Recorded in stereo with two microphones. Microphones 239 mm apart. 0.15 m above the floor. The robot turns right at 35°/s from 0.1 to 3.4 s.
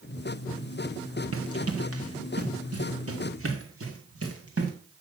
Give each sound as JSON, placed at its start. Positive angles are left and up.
{"t": 1.3, "sound": "running footsteps", "side_deg": -65, "distance_m": 2.0}